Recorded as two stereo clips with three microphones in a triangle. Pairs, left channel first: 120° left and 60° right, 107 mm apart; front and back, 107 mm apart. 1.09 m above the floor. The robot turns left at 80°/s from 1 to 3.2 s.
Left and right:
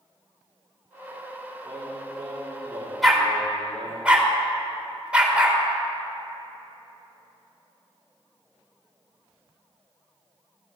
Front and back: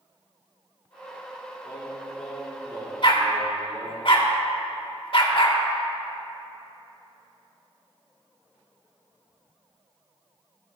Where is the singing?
35° right, 2.5 m; by 4.0 s 160° right, 2.5 m.